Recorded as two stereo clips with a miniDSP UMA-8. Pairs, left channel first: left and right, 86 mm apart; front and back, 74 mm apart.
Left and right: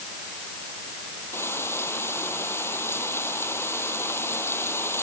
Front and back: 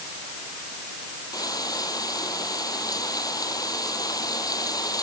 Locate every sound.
1.3 s frying: 30° left